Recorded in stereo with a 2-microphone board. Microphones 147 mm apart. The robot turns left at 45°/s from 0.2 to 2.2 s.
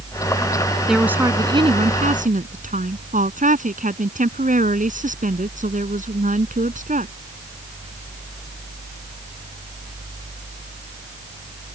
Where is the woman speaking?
Straight ahead; by 7.1 s 60° right.